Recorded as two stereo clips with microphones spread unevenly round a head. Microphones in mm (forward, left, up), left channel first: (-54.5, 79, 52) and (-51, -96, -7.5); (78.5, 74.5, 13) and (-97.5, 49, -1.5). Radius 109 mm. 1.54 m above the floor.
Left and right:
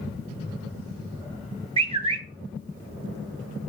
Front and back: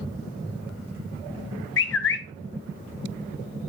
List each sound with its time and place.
1.8 s a bird: 30° right, 0.9 m